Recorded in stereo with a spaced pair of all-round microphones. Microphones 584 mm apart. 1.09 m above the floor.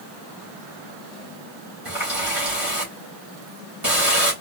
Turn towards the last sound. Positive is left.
turn(degrees=-55)  # may be behind; listen again after turning